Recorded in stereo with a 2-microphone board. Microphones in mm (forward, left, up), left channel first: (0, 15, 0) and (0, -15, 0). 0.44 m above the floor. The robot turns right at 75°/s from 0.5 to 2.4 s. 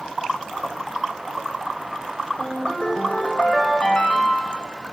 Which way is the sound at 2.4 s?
45° left (ahead or behind).